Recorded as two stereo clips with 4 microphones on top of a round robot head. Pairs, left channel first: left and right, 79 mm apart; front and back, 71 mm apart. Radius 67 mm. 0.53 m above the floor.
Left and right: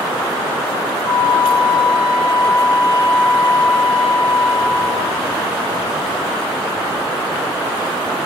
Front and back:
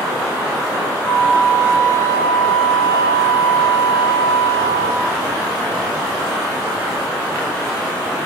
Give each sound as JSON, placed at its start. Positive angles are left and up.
{"t": 1.0, "sound": "a flute", "azimuth_deg": 35, "distance_m": 4.5}